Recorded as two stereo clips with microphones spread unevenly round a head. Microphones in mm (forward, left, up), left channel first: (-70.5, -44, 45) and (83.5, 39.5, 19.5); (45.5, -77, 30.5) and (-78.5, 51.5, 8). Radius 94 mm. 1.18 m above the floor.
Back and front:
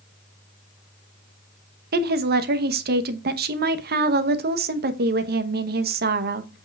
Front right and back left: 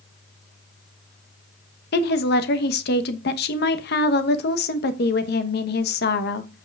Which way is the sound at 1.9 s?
5° right.